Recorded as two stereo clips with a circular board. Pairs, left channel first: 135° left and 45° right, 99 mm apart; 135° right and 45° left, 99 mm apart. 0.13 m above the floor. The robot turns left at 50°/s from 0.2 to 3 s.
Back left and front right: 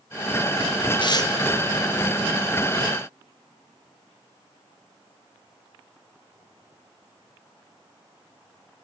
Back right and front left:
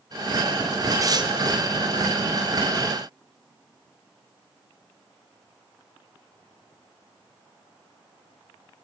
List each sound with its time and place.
1.0 s tearing paper: 100° left, 0.8 m; by 1.3 s 80° left, 0.8 m